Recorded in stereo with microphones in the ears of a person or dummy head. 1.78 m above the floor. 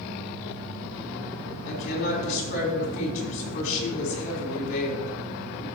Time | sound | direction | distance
1.6 | a woman speaking | 45° left (ahead or behind) | 4.5 m